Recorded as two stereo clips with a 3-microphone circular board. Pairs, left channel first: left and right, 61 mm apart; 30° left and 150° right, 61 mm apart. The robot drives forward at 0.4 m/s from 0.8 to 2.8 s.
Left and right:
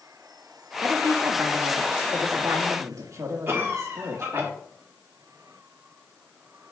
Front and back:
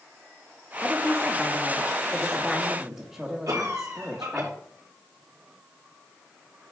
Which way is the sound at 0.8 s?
55° right.